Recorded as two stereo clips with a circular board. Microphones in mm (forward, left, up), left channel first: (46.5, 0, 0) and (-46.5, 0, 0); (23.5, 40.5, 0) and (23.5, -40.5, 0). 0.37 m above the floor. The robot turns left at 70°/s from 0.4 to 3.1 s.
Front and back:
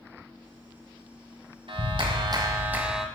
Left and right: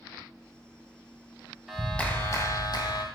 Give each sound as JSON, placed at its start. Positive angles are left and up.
{"t": 1.7, "sound": "a clap", "azimuth_deg": -175, "distance_m": 1.6}